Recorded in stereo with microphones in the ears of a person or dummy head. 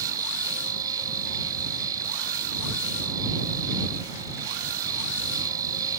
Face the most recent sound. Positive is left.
turn(degrees=-20)  # may be behind; listen again after turning